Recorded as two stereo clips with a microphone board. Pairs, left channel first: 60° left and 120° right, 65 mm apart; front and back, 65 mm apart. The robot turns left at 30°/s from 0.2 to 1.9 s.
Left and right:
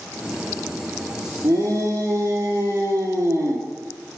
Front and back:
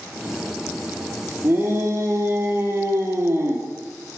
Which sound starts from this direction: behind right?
A shout, at 1.4 s.